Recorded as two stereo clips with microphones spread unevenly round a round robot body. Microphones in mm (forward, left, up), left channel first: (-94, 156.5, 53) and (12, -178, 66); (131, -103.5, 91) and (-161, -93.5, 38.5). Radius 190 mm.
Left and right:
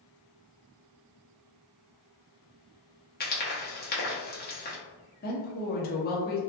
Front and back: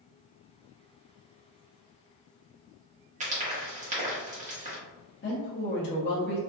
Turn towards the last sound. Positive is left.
turn(degrees=50)